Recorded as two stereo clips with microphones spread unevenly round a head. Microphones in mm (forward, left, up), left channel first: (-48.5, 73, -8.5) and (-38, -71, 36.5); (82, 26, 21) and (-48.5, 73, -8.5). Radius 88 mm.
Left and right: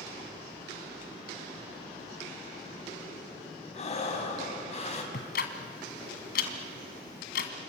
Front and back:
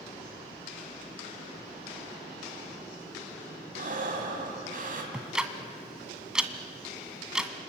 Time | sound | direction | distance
3.7 | breathing | 140° left | 3.5 m
5.1 | ticking | 65° left | 1.7 m